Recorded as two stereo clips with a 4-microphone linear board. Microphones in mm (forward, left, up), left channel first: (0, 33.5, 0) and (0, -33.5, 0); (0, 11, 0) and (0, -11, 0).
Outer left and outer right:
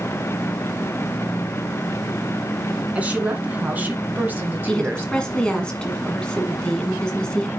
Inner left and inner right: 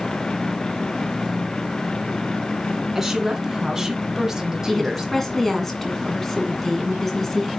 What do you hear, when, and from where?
3.0 s a woman speaking: 20° right (ahead or behind), 2 m; by 5.7 s 25° right (ahead or behind), 1.1 m
4.7 s a woman speaking: 15° left (ahead or behind), 2 m